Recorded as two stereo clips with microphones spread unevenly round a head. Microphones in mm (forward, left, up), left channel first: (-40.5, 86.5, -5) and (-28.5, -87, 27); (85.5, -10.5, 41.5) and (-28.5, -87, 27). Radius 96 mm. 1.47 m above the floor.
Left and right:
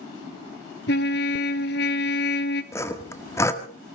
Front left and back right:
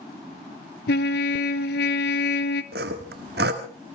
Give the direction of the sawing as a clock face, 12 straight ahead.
6 o'clock.